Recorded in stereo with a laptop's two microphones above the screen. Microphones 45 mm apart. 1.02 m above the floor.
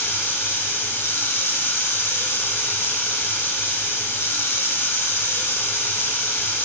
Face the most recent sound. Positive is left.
turn(degrees=65)  # may be behind; listen again after turning